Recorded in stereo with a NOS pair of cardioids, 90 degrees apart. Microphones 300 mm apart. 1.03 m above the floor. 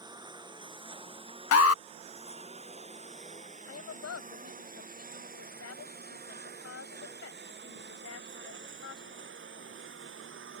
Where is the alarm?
55° left.